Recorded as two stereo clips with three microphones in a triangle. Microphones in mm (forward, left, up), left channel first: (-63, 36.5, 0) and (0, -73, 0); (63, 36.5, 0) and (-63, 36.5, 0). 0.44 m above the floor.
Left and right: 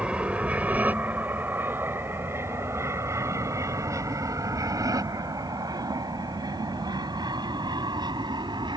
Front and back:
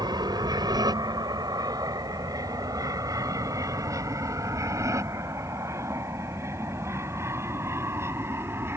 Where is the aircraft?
140° right; by 8.8 s 110° right.